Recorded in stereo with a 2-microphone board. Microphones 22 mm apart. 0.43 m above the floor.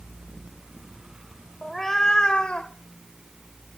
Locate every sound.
1.6 s a cat meowing: centre (ahead or behind), 1.0 m; by 2.7 s 50° left (ahead or behind), 1.3 m